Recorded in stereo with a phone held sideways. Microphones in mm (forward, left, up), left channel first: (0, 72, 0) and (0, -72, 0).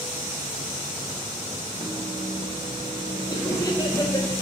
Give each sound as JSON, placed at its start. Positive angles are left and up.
{"t": 1.8, "sound": "a microwave", "side_deg": -75, "distance_m": 1.8}
{"t": 3.3, "sound": "laughter", "side_deg": 25, "distance_m": 3.0}